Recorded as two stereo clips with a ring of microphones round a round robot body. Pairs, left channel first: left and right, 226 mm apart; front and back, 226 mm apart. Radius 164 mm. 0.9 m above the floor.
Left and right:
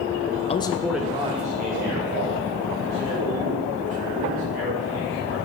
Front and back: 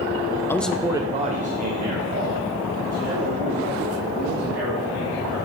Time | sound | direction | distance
0.5 | a man speaking | 70° left | 0.5 m